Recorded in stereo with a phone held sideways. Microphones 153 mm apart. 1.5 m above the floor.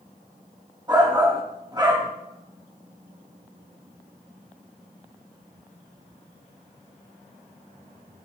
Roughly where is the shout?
Right.